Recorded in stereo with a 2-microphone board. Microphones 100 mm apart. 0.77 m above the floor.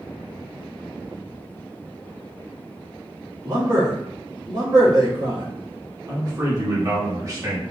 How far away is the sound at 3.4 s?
About 2 m.